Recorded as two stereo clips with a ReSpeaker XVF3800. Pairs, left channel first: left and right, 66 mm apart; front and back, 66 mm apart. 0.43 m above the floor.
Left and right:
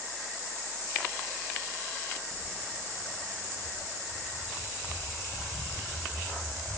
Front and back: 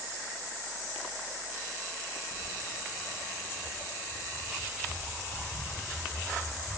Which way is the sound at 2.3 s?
Straight behind.